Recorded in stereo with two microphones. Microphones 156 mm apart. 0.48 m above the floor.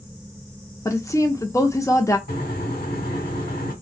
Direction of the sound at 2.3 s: 70° left (ahead or behind).